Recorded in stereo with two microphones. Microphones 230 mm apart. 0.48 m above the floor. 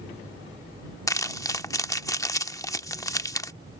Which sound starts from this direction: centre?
Crumpling, at 1.1 s.